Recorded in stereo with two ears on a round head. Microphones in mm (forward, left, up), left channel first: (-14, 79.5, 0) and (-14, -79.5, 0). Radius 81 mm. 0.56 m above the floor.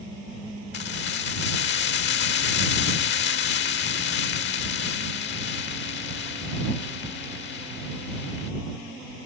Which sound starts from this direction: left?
Keys jangling, at 0.7 s.